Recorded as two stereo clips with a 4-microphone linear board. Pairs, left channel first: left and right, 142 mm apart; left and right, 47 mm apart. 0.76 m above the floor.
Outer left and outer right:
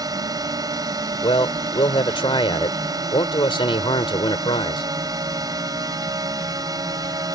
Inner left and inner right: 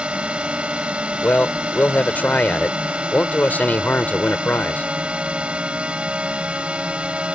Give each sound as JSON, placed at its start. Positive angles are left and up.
{"t": 0.0, "sound": "a drone", "side_deg": -25}
{"t": 1.2, "sound": "a man speaking", "side_deg": 35}